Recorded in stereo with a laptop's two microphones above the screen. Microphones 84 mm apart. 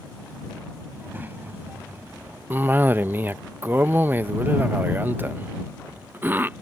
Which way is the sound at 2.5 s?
25° right (ahead or behind).